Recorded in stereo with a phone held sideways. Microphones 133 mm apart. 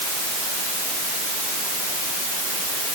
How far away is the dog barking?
I don't hear a dog barking.